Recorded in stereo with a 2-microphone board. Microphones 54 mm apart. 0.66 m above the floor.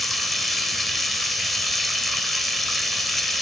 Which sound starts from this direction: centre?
Running water, at 0.0 s.